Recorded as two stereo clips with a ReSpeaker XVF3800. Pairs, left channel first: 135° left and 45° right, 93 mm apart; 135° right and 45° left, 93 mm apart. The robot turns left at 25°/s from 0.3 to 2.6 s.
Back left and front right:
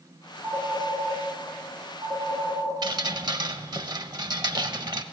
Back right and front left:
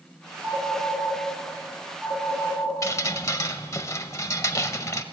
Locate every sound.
0.4 s a phone ringing: 60° left, 6 m; by 2.8 s 5° left, 6 m
2.8 s dripping: 80° right, 0.6 m